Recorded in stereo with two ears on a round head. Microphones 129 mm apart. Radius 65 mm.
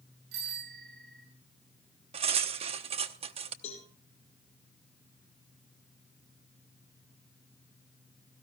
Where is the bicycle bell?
85° right, 9 m.